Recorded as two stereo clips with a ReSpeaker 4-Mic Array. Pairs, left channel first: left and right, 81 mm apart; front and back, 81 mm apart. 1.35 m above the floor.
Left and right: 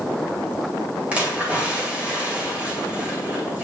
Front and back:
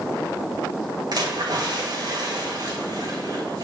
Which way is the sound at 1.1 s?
165° right.